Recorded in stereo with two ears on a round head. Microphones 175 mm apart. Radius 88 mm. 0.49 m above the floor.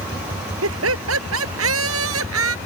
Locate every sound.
0.6 s laughter: 80° right